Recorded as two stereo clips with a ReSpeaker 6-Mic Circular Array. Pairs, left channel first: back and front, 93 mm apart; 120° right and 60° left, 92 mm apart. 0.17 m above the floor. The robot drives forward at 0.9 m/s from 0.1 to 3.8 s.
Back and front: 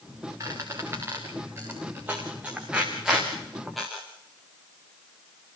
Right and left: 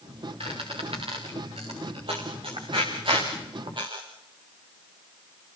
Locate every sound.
0.4 s a squeak: 55° left, 5.5 m; by 4.0 s 90° left, 4.5 m